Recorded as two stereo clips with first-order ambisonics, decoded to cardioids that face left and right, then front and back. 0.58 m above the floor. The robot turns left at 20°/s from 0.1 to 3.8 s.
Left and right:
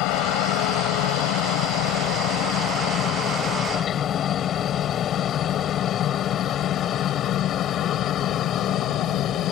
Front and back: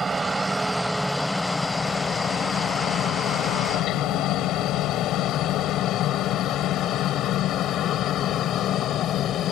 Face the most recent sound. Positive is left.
turn(degrees=45)